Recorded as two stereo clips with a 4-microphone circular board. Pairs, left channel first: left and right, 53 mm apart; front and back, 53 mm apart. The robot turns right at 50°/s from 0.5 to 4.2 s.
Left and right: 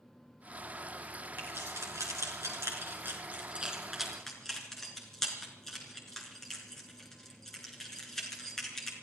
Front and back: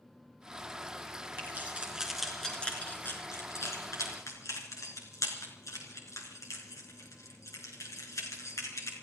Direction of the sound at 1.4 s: 135° right.